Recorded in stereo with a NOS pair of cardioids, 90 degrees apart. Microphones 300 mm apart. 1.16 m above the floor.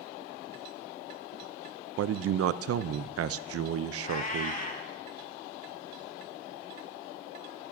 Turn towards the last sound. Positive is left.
turn(degrees=30)